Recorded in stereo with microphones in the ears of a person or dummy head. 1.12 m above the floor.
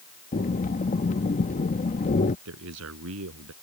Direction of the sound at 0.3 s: 40° left (ahead or behind).